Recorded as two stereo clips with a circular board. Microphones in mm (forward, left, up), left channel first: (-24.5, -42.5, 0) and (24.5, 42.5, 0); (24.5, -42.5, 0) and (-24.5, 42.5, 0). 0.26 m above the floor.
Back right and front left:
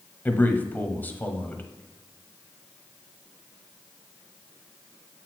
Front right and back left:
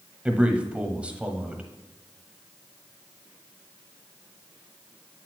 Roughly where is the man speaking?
Behind.